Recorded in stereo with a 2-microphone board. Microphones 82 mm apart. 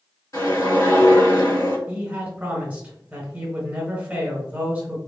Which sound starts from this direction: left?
A whoosh, at 0.3 s.